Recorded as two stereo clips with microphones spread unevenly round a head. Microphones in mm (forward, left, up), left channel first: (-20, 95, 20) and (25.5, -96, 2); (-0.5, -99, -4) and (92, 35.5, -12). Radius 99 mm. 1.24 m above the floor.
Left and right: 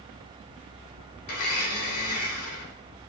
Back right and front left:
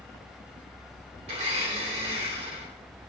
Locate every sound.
1.3 s a blender: 115° left, 2.5 m